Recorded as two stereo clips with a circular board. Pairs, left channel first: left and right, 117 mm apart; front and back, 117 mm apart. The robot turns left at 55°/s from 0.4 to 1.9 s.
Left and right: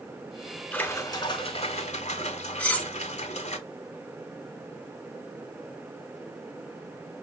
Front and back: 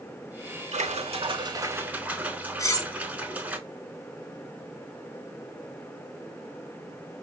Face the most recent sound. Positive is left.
turn(degrees=25)